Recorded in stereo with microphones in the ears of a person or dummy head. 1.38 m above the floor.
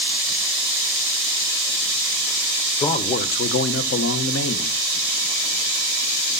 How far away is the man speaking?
About 1.3 m.